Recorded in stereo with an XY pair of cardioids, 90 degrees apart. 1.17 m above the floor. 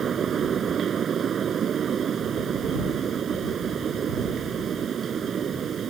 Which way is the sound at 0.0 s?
60° right.